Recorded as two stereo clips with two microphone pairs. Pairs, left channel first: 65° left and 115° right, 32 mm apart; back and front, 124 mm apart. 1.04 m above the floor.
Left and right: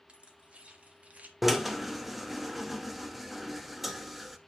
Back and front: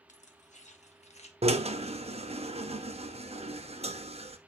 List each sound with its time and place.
0.1 s keys jangling: 170° right, 1.7 m; by 1.3 s 155° right, 1.2 m
1.4 s a drill: 30° right, 0.9 m